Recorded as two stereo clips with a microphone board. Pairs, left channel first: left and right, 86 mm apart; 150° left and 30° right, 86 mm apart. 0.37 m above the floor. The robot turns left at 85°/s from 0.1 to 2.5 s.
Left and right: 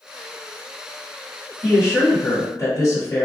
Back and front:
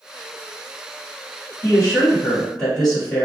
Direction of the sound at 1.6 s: 150° left.